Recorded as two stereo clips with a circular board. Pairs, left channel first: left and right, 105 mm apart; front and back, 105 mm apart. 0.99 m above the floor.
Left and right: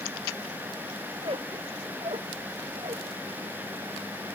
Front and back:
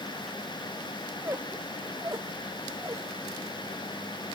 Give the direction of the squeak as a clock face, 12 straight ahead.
4 o'clock.